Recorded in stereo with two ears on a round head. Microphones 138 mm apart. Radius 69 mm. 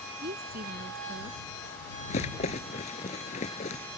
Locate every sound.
0.2 s a woman speaking: 65° right (ahead or behind)
2.1 s a rattle: 45° left (ahead or behind)